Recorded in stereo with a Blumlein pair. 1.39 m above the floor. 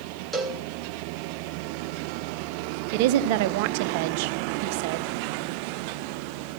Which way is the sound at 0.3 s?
10° right.